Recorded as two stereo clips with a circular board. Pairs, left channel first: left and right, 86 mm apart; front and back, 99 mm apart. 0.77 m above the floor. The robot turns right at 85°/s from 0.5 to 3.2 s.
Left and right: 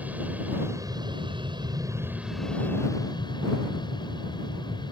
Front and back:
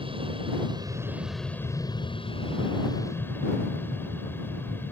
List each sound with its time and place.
0.0 s an aircraft: 160° right; by 4.9 s 70° left